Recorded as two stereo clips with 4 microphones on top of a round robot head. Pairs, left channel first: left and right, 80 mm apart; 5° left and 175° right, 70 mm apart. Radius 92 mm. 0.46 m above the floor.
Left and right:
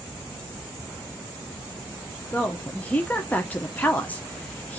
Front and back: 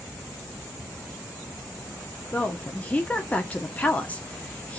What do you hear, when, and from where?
2.3 s a woman speaking: 45° left, 1.0 m